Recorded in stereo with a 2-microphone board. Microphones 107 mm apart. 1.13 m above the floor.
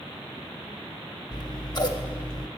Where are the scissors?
40° left (ahead or behind), 0.8 m.